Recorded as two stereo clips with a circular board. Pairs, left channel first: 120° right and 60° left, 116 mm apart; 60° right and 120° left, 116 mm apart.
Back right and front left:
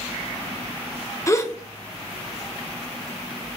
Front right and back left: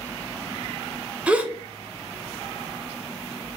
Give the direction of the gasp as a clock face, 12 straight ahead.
6 o'clock.